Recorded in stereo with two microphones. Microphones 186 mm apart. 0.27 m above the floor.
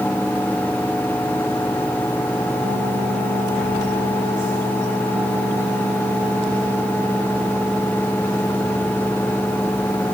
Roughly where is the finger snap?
No finger snap in this recording.